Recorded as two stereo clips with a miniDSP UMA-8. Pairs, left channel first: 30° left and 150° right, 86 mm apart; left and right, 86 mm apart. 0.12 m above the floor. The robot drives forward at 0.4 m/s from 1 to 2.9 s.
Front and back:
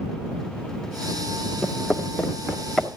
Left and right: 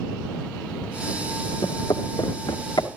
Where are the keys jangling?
I don't hear keys jangling.